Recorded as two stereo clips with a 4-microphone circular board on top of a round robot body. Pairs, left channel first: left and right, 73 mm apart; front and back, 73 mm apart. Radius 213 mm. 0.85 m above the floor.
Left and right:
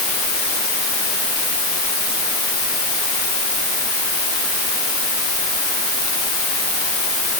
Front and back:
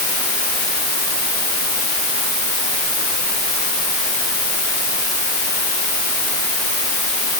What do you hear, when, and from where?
Only background noise.